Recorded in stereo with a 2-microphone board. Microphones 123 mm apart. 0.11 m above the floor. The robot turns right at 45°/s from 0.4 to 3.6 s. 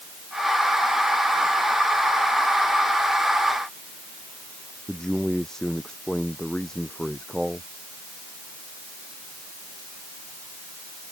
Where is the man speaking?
5° left (ahead or behind).